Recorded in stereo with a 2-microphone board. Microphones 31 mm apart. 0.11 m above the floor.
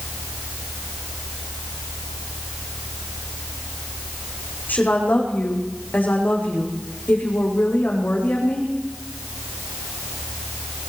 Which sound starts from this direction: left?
A woman speaking, at 4.7 s.